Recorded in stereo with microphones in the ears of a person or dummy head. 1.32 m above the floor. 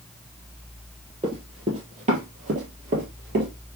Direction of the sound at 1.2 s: 25° right (ahead or behind).